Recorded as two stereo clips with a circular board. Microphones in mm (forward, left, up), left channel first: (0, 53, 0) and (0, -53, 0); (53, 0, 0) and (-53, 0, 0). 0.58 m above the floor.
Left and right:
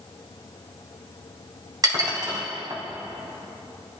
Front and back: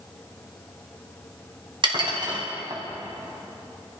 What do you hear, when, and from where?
1.8 s dishes clattering: 140° right, 3 m